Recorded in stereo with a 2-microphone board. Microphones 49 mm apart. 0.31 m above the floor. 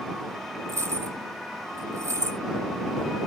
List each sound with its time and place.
0.7 s keys jangling: 80° right